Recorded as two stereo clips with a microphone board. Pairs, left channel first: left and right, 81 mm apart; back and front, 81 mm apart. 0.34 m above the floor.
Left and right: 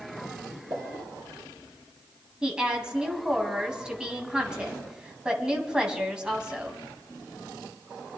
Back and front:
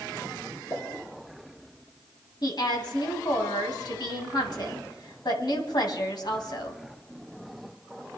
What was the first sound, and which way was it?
A pop, 130° right.